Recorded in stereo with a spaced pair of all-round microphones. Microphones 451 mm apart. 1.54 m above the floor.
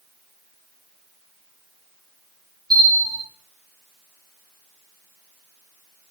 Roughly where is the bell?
Centre.